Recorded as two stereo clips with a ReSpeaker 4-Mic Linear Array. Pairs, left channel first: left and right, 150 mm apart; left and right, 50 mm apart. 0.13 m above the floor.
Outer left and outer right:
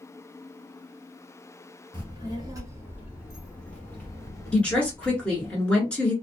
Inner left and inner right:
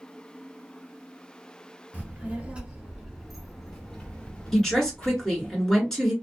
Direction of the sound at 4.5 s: 10° left (ahead or behind).